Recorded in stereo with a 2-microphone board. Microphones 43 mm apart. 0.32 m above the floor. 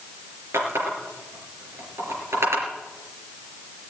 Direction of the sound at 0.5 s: 80° right.